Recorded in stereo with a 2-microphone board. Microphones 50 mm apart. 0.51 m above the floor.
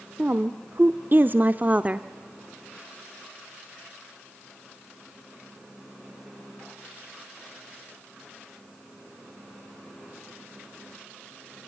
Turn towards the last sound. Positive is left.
turn(degrees=-25)  # may be behind; listen again after turning